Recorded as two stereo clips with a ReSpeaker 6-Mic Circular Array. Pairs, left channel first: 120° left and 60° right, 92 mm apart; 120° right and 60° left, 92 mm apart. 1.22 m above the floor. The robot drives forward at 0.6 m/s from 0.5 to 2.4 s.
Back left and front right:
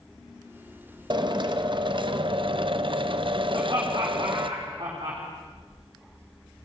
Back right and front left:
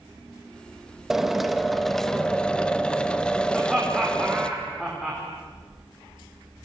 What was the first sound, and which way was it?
A drill, 25° right.